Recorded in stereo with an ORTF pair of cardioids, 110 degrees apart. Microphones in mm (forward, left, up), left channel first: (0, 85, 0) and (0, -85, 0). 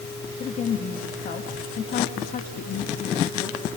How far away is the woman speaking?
About 3 m.